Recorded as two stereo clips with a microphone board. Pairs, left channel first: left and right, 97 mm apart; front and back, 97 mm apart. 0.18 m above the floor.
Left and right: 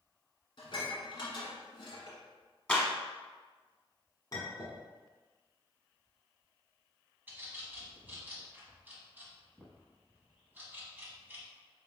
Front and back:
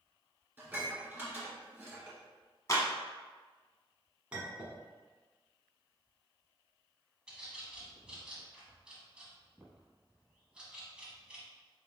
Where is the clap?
20° left, 1.1 m.